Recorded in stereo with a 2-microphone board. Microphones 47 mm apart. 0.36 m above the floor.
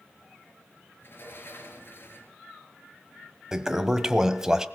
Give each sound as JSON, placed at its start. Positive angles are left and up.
{"t": 1.0, "sound": "a sliding door", "side_deg": 55, "distance_m": 4.0}
{"t": 3.5, "sound": "a toilet flushing", "side_deg": -10, "distance_m": 1.2}